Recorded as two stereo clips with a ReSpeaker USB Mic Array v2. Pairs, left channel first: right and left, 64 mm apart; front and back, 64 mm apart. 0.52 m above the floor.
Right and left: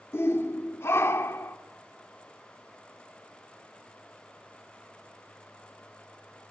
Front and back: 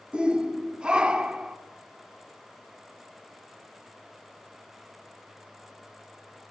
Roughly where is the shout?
Right.